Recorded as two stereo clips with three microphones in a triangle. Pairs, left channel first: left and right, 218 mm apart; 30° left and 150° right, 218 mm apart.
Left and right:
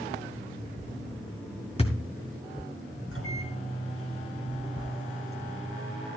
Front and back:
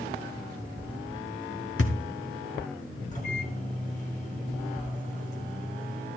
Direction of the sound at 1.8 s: 30° left.